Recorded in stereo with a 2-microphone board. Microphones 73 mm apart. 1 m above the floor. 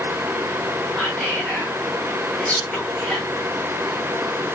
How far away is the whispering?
About 1.0 m.